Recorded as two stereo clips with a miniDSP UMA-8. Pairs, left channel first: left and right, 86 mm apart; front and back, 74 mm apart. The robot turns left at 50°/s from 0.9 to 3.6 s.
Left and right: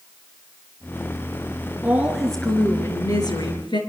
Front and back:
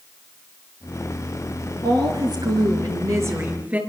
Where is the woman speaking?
160° right, 4.5 m; by 3.8 s 110° left, 4.5 m.